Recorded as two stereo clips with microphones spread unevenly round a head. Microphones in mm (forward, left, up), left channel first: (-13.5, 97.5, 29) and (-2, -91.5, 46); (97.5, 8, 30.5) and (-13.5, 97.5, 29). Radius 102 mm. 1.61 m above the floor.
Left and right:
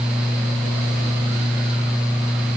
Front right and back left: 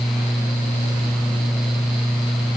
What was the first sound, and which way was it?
Only background noise.